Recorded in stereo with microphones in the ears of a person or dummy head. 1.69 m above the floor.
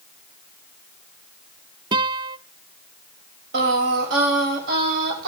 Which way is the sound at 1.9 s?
25° right (ahead or behind).